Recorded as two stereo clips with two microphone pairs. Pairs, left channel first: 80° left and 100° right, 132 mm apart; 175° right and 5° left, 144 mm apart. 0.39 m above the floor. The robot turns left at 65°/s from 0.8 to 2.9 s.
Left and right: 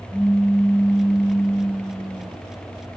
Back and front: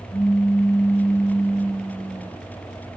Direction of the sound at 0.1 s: 65° right.